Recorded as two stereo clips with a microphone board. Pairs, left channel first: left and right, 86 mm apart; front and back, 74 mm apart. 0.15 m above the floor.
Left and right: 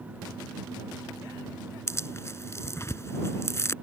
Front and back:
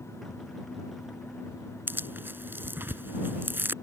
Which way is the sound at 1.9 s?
130° left.